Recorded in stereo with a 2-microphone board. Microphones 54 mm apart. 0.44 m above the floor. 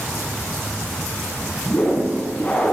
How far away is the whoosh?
About 4.5 m.